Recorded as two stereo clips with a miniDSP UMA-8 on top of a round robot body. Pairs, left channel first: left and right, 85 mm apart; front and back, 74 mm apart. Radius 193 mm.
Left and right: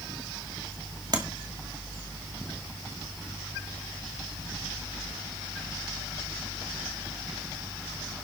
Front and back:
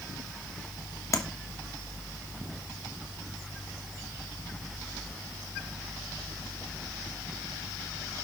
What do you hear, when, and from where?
1.1 s tapping: 45° right, 2 m